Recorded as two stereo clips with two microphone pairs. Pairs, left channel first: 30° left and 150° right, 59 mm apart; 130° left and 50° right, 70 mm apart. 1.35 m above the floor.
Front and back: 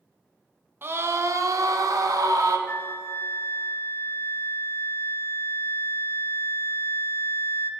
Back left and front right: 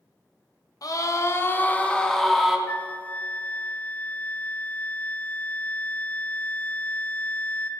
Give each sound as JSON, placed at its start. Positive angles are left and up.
{"t": 0.8, "sound": "a scream", "azimuth_deg": 165, "distance_m": 1.4}
{"t": 2.7, "sound": "a flute", "azimuth_deg": 70, "distance_m": 0.6}